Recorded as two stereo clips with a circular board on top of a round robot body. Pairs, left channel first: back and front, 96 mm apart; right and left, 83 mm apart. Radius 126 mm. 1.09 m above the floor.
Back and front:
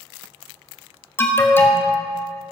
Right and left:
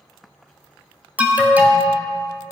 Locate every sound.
1.2 s an alarm: 140° left, 1.4 m